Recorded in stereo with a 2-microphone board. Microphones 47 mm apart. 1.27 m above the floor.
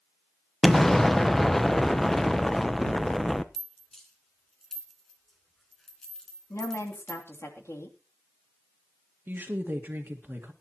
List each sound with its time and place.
0.6 s an explosion: 5° left (ahead or behind), 0.8 m
3.5 s a rattle: 10° left (ahead or behind), 2.5 m
6.5 s a woman speaking: 80° left, 3 m
9.3 s a woman speaking: 45° right (ahead or behind), 1.7 m